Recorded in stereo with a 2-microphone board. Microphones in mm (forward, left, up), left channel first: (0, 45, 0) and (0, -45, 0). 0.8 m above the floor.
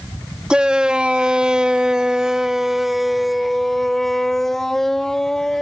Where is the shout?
10° right (ahead or behind); by 5.6 s 5° left (ahead or behind).